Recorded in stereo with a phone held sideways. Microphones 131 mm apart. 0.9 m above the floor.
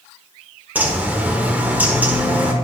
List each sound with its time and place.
0.8 s a bird: 15° right (ahead or behind), 1.1 m